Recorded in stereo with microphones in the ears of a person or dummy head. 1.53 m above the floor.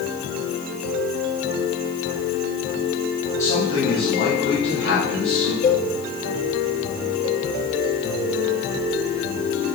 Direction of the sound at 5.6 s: 45° left (ahead or behind).